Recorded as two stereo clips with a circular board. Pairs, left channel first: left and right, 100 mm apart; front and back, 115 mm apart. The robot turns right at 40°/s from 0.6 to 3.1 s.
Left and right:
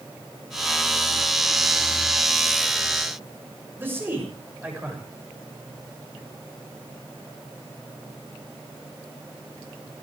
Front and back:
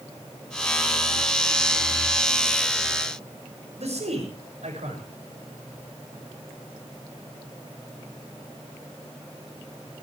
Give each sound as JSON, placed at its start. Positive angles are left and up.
{"t": 3.8, "sound": "a man speaking", "azimuth_deg": -160, "distance_m": 7.0}